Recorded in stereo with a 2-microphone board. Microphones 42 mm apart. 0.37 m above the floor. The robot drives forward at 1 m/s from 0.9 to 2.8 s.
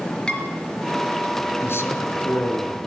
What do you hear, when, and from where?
0.3 s dishes clattering: 20° left (ahead or behind), 4 m
1.6 s a man speaking: 70° left (ahead or behind), 4.5 m; by 2.8 s 75° left (ahead or behind), 4.5 m